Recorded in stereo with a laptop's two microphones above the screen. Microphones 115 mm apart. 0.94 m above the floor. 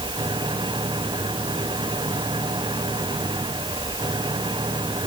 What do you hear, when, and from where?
0.0 s an engine running: 40° right (ahead or behind)